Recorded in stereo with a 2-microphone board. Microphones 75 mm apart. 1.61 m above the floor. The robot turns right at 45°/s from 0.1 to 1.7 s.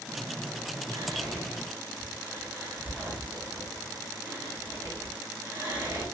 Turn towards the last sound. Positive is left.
turn(degrees=-30)  # may be behind; listen again after turning